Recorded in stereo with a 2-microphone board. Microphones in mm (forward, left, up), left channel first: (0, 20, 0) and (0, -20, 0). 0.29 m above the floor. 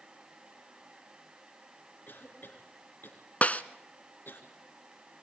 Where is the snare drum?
40° left (ahead or behind), 0.8 m.